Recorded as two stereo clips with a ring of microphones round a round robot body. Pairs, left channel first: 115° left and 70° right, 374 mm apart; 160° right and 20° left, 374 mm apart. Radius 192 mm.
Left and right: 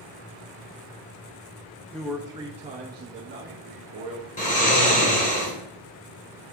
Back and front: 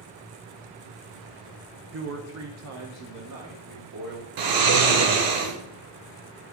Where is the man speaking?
30° left, 0.8 m; by 4.3 s 20° right, 1.6 m.